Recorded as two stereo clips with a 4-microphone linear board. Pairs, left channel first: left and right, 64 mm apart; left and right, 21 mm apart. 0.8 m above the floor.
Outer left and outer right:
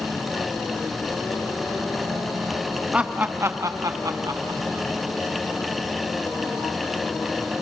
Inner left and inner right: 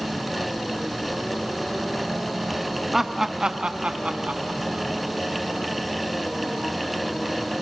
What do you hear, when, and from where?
2.9 s laughter: 15° right (ahead or behind), 0.9 m; by 4.9 s 60° right (ahead or behind), 1.4 m